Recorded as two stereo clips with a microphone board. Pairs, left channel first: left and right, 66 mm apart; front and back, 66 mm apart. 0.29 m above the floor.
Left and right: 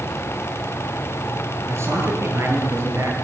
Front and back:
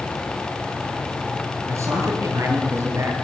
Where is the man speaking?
135° right, 7 m.